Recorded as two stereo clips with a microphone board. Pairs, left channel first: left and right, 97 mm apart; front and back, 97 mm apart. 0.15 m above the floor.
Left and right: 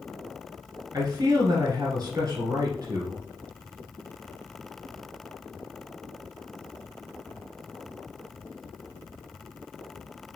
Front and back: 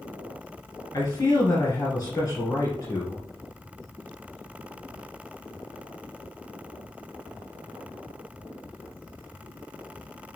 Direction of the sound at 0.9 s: 50° right.